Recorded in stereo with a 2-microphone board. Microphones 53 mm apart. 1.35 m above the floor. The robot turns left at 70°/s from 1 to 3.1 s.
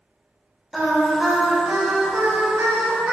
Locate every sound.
0.7 s singing: straight ahead, 0.6 m; by 3.1 s 145° right, 0.6 m